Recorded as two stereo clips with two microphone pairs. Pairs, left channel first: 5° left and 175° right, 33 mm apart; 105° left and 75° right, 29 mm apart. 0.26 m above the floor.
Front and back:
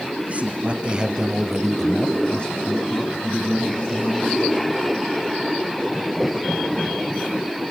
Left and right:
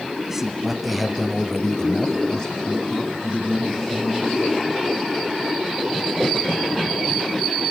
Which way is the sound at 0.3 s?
150° right.